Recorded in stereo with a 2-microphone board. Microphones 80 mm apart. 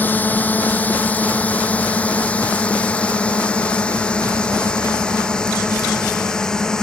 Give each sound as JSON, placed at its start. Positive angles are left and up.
{"t": 0.0, "sound": "a drone", "side_deg": 20}